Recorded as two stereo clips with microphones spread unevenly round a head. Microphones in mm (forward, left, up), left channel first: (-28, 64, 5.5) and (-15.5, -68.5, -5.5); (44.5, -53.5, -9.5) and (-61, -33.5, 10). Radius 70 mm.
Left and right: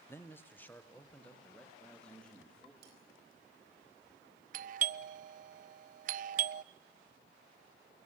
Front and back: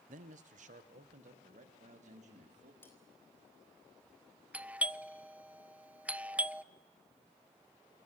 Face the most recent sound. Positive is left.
turn(degrees=-115)